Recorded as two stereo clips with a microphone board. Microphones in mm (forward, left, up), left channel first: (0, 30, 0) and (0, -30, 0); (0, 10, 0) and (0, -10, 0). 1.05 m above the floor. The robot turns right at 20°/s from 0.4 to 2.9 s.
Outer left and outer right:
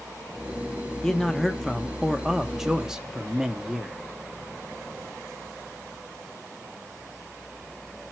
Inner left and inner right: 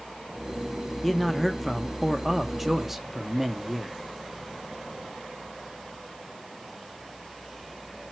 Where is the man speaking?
10° left (ahead or behind), 0.8 m; by 4.0 s 10° right (ahead or behind), 0.8 m.